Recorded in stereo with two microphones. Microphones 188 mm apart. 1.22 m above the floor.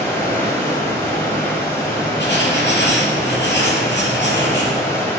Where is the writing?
70° left (ahead or behind), 6.5 m.